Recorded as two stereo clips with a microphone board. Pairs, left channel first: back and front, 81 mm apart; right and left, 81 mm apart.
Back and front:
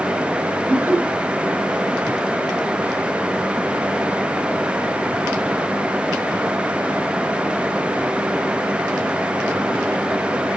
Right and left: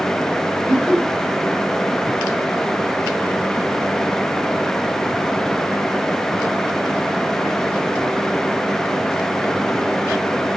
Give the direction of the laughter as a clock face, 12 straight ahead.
1 o'clock.